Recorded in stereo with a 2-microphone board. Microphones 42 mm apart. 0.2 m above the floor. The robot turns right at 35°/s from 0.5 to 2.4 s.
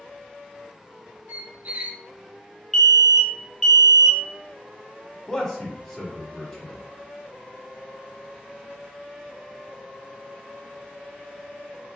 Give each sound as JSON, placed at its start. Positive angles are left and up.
{"t": 1.3, "sound": "a squeak", "side_deg": -50, "distance_m": 0.6}
{"t": 2.7, "sound": "an alarm", "side_deg": 5, "distance_m": 0.7}
{"t": 5.3, "sound": "a man speaking", "side_deg": 5, "distance_m": 1.1}